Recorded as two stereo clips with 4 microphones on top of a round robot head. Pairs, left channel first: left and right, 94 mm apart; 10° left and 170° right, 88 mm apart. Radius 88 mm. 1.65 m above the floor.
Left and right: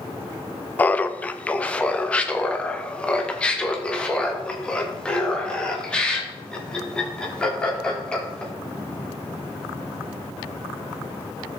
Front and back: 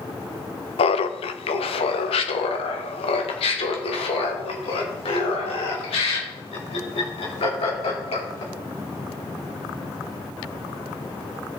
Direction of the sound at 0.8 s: 15° left.